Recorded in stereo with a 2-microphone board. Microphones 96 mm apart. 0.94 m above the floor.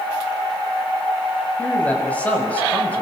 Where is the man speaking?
15° left (ahead or behind), 6.5 m.